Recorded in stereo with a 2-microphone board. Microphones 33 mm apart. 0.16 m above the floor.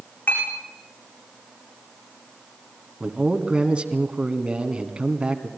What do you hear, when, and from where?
0.3 s a clink: 75° left (ahead or behind), 8.5 m
3.0 s a man speaking: 30° right (ahead or behind), 1.8 m